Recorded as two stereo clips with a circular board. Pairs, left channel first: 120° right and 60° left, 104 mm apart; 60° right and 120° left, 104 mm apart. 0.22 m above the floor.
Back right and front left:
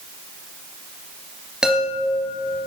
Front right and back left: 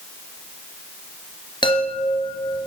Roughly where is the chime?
Ahead.